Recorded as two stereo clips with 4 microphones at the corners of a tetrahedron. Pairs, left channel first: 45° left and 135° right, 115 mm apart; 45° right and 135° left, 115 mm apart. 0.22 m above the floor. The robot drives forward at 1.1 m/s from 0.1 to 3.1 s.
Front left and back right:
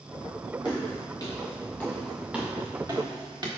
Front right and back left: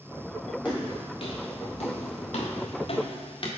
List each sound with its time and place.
0.7 s footsteps: straight ahead, 2.5 m; by 3.5 s 85° right, 1.9 m